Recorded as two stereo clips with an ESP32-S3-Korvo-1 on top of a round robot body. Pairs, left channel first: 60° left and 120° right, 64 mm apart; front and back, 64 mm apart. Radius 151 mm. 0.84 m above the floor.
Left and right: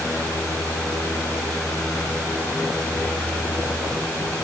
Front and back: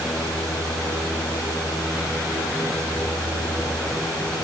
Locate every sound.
Only background noise.